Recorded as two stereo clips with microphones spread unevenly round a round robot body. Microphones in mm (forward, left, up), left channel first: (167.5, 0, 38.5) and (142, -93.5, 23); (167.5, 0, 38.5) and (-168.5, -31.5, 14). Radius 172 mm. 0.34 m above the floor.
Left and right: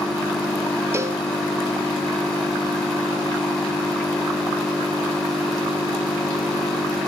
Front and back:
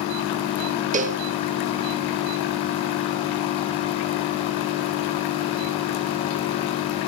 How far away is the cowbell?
About 1.1 m.